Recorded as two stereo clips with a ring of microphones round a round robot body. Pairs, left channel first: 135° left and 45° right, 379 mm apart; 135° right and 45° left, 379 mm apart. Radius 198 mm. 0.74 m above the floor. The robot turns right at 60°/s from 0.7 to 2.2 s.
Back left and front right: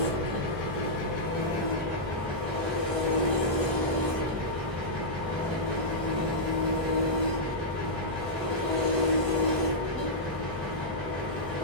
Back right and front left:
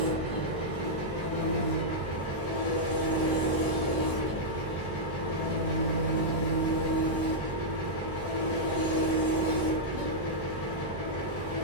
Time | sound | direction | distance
0.0 | an engine running | 135° left | 1.1 m